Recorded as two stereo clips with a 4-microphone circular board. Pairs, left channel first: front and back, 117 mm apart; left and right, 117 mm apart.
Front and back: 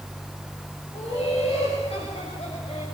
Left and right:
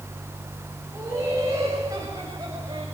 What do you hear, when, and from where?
0.9 s laughter: 25° right, 6 m; by 2.9 s 35° right, 6 m